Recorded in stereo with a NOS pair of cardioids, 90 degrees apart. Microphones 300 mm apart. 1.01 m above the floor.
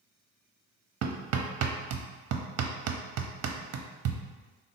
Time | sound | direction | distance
1.0 | hammering | 60° right | 0.6 m